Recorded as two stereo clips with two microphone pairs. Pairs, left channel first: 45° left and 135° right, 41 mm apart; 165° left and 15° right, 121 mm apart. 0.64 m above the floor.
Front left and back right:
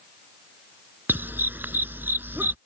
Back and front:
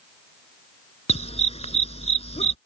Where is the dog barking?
165° right.